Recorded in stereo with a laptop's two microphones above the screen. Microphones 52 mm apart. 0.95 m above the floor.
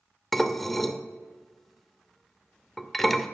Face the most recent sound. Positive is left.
turn(degrees=5)  # may be behind; listen again after turning